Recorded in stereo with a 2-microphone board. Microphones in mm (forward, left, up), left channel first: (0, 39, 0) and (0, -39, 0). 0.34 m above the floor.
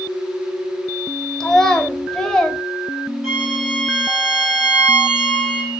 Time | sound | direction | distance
1.4 | a child speaking | 10° left (ahead or behind) | 0.6 m
3.2 | a violin | centre (ahead or behind) | 2 m